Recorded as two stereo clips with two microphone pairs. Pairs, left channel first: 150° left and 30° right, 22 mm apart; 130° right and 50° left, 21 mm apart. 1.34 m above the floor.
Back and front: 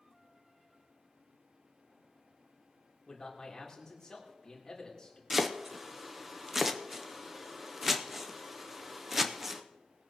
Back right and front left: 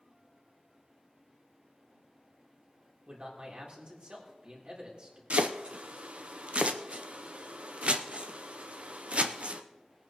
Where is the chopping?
45° left, 0.7 m.